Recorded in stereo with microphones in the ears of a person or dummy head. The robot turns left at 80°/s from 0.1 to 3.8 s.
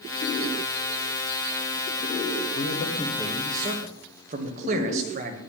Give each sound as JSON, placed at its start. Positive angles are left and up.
{"t": 2.5, "sound": "a man speaking", "azimuth_deg": 60, "distance_m": 1.6}